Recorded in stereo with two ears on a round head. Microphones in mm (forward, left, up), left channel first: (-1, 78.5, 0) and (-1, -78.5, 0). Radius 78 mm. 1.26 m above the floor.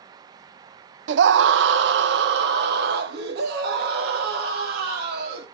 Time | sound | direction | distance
1.1 | a scream | 70° right (ahead or behind) | 0.6 m